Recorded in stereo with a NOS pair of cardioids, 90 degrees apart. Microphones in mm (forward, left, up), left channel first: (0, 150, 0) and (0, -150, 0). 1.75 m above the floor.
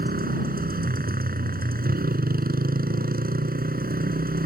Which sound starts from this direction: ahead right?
A motorcycle, at 0.0 s.